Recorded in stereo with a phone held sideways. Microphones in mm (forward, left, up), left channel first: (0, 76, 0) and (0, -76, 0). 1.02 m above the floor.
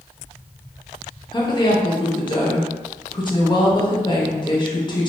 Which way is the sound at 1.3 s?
30° left (ahead or behind).